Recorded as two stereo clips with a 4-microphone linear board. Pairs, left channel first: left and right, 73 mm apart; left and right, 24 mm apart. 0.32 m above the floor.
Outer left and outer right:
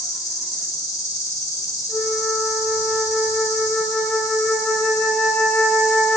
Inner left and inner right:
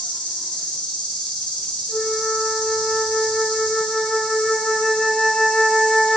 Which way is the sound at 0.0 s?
60° left (ahead or behind).